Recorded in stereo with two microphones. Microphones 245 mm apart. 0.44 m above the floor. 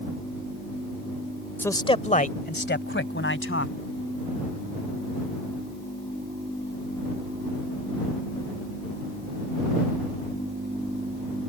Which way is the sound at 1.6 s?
10° left (ahead or behind).